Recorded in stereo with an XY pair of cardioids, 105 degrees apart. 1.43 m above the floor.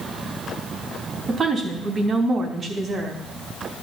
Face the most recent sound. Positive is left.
turn(degrees=-45)